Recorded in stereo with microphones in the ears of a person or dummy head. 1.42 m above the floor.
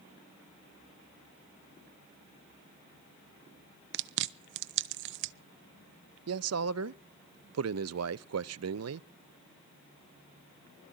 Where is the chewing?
60° right (ahead or behind), 0.6 m.